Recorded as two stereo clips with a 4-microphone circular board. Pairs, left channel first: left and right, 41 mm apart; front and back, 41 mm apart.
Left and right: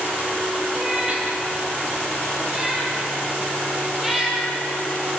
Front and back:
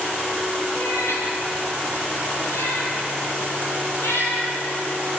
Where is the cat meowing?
15° right, 6.5 m; by 4.5 s 5° right, 8.5 m.